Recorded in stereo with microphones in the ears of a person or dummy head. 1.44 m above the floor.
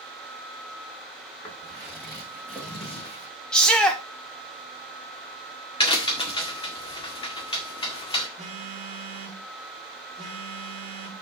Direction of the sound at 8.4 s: 30° right (ahead or behind).